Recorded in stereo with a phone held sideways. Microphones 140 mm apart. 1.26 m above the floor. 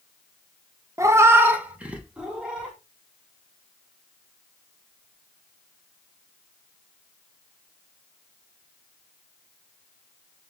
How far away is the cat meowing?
About 0.5 m.